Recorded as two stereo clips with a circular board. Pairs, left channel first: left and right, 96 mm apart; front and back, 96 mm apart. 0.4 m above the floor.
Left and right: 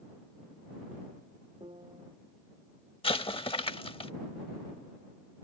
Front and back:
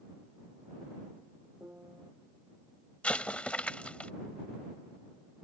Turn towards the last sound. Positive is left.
turn(degrees=75)